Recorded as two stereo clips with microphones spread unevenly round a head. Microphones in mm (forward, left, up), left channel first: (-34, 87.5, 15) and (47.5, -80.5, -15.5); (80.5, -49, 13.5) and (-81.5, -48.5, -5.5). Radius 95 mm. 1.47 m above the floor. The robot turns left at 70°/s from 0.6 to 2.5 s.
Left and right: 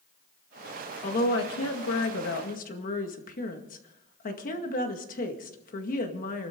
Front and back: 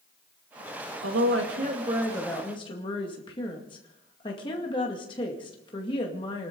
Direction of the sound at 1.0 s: 170° left.